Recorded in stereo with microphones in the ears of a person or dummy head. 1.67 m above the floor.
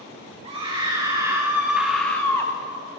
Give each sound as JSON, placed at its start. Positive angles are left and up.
{"t": 0.4, "sound": "a scream", "side_deg": -30, "distance_m": 1.7}